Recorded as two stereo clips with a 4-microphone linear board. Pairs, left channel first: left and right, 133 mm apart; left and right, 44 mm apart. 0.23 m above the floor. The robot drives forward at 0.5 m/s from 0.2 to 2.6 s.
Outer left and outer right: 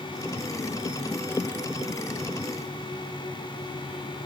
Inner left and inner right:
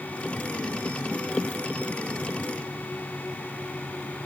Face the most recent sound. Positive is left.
No sound to turn to.